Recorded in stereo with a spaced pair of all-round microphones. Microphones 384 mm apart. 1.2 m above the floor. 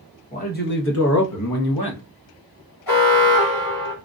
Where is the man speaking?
20° left (ahead or behind), 1.2 m; by 2.0 s 85° left, 0.8 m.